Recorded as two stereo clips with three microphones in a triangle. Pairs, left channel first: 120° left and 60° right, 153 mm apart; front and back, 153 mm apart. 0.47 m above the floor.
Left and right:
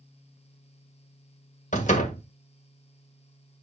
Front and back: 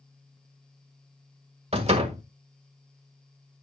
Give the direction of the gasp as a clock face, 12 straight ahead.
I don't hear a gasp.